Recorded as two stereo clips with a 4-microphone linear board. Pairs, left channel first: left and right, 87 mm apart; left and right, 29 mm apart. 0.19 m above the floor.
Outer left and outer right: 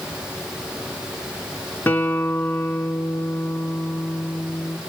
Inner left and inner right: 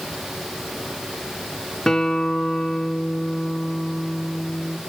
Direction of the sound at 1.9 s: 25° left (ahead or behind).